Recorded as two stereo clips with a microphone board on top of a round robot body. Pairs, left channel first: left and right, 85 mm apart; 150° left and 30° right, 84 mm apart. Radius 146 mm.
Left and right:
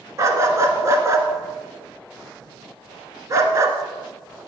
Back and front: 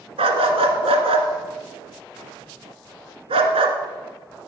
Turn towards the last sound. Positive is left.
turn(degrees=-35)